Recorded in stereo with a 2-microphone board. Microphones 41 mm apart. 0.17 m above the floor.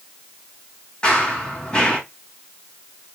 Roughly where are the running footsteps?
Left.